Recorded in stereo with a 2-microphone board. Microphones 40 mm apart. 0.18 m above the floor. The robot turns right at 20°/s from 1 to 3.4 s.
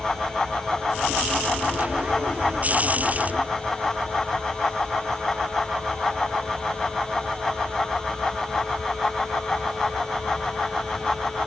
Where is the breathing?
I don't hear breathing.